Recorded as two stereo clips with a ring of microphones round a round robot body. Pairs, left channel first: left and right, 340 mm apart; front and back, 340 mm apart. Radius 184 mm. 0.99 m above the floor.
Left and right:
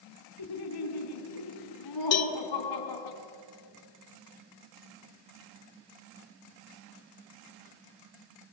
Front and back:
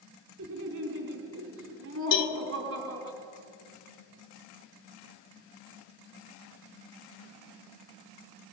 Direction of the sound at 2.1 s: 45° left.